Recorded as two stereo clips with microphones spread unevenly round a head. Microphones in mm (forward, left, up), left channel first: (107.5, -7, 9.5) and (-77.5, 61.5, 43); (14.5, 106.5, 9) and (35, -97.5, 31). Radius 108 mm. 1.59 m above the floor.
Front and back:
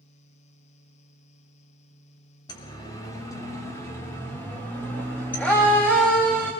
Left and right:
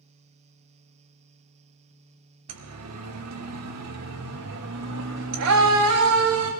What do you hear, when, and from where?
2.5 s a siren: 90° right, 2.5 m; by 6.5 s 105° right, 6 m